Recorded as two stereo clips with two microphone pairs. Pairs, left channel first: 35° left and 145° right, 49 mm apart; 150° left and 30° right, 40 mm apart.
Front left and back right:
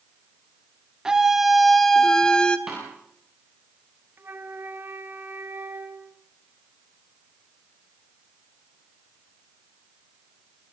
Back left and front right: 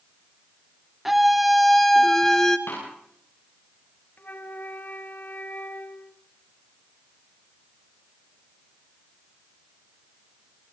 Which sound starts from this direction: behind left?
A snare drum, at 2.7 s.